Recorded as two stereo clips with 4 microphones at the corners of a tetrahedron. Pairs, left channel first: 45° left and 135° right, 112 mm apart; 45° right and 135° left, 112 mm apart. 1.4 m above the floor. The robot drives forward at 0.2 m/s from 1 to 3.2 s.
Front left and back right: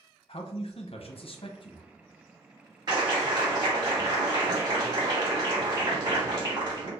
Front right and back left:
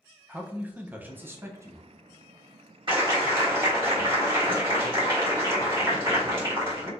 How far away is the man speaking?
About 0.7 m.